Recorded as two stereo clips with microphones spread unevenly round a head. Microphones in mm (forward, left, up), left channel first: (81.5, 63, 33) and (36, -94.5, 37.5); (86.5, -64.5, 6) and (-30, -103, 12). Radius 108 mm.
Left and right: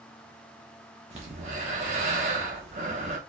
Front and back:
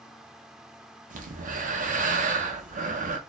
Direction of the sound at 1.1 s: 165° right.